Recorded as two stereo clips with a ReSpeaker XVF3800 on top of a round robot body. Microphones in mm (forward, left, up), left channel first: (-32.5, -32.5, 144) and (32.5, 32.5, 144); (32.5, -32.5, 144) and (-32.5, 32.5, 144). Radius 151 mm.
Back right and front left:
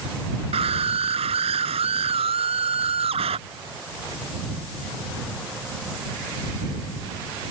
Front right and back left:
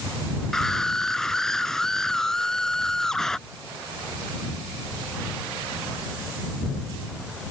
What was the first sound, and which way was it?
A scream, 40° left.